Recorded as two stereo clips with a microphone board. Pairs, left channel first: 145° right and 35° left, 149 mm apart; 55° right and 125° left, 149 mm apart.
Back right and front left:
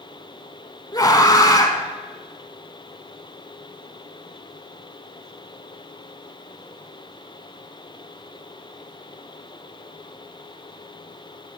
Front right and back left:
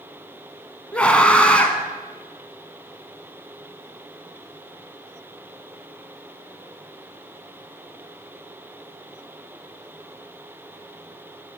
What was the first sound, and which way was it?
A scream, 125° right.